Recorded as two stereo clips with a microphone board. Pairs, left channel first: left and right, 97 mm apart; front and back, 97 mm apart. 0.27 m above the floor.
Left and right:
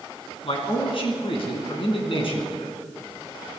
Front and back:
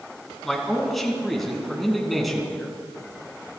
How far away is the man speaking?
About 3 m.